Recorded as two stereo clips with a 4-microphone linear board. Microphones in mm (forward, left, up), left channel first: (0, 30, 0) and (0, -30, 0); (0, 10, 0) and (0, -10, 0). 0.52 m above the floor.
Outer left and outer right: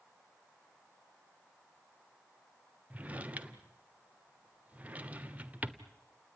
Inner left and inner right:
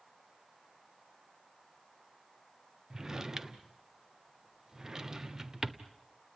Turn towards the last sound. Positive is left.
turn(degrees=-25)  # may be behind; listen again after turning